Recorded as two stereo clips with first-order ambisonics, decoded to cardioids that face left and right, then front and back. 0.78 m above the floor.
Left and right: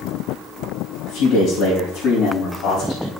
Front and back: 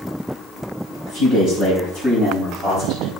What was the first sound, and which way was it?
A man speaking, 115° left.